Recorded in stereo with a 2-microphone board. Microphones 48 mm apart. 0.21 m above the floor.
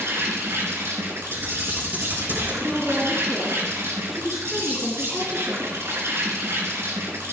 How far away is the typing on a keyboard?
About 5.5 m.